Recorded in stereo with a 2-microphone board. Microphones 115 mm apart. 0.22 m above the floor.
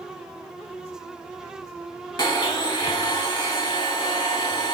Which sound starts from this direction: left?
A blender, at 2.2 s.